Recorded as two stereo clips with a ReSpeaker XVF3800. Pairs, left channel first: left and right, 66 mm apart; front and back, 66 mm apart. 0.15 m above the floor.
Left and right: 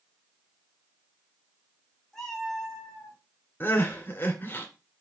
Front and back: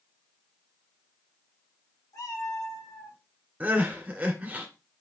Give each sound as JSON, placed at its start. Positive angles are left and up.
{"t": 2.1, "sound": "a cat meowing", "azimuth_deg": 5, "distance_m": 4.5}
{"t": 3.6, "sound": "crying", "azimuth_deg": 125, "distance_m": 2.0}